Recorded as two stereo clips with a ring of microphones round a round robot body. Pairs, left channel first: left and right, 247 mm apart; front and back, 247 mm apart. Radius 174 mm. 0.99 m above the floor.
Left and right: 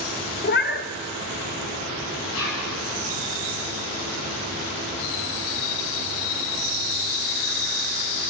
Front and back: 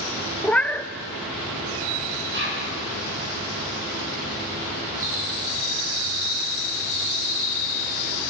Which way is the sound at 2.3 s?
140° left.